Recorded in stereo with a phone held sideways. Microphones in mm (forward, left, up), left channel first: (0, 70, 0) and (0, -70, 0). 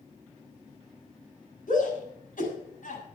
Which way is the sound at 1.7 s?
80° left.